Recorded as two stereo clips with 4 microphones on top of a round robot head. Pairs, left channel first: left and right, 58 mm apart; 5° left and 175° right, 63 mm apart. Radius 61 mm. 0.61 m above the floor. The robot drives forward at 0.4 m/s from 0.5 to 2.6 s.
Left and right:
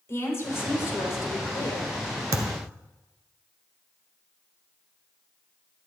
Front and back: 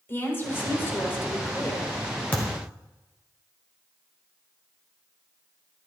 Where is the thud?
65° right, 1.2 m; by 2.7 s 70° right, 1.2 m.